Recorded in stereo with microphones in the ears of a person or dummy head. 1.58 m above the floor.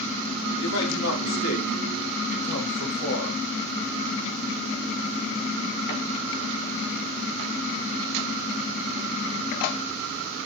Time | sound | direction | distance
0.6 | a man speaking | 85° left | 4.5 m